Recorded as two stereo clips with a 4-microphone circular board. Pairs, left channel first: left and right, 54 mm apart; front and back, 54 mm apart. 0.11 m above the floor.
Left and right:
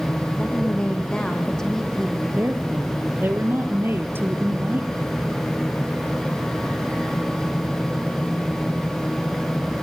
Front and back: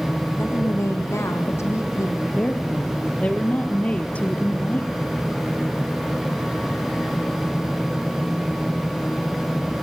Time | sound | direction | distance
0.4 | a woman speaking | 25° left | 6 m
2.3 | a woman speaking | 60° right | 2.5 m